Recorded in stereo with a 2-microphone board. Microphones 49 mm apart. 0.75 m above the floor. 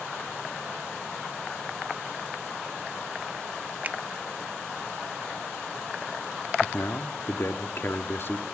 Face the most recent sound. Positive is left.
turn(degrees=45)  # may be behind; listen again after turning